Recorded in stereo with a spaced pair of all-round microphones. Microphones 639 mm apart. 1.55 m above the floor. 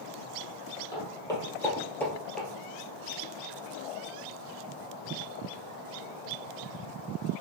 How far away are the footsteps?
About 1.8 m.